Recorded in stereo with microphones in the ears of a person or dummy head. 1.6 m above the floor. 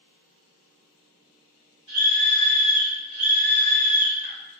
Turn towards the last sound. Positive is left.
turn(degrees=5)  # may be behind; listen again after turning